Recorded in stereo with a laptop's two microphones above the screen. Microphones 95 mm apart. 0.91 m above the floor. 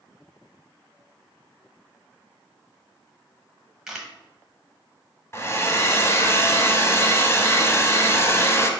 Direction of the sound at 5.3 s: 30° left (ahead or behind).